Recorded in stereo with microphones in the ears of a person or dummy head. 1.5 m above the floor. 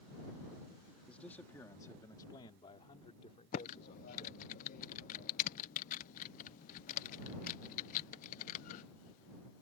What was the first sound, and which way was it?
A man speaking, 5° left (ahead or behind).